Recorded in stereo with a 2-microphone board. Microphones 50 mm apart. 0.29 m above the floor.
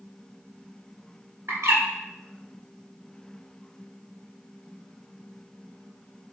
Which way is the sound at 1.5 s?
80° right.